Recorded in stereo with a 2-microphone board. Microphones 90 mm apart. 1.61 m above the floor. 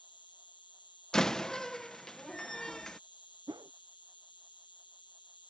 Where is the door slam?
5° left (ahead or behind).